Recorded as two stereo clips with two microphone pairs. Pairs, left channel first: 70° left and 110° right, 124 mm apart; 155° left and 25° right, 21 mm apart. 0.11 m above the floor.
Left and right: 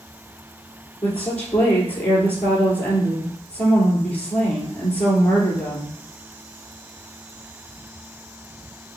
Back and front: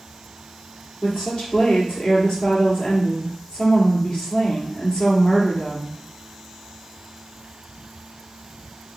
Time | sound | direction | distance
1.0 | a woman speaking | 145° left | 2 m